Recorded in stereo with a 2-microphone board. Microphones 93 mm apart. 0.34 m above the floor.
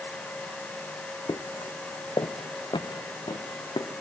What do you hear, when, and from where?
1.3 s footsteps: 50° left (ahead or behind), 0.9 m; by 3.9 s 65° left (ahead or behind), 2.5 m